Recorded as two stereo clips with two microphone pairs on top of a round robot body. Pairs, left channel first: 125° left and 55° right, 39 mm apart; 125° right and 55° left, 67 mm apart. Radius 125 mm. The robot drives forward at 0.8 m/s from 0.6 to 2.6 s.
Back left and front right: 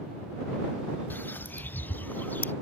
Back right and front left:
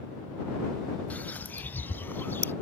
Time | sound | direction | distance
1.1 | a bird | 165° left | ?